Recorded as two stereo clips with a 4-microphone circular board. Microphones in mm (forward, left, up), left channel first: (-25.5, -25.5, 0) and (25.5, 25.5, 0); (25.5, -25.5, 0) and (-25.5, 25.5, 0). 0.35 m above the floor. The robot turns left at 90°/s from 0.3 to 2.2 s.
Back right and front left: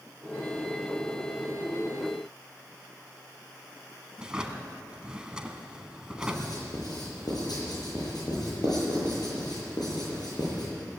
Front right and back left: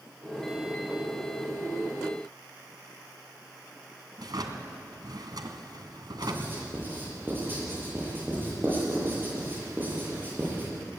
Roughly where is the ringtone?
No ringtone in this recording.